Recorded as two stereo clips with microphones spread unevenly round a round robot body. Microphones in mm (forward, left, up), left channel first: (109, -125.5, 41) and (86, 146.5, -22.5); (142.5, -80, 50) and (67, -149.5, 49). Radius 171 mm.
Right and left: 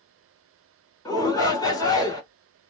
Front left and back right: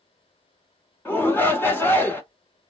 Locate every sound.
1.1 s a shout: 5° left, 1.3 m